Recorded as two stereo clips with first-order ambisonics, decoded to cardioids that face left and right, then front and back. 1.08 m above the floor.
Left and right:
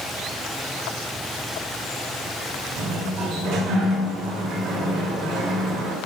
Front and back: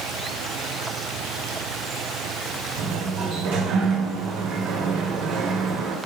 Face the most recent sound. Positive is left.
turn(degrees=-145)